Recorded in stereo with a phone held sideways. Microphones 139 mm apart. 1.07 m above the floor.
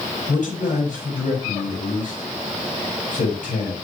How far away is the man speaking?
About 5 m.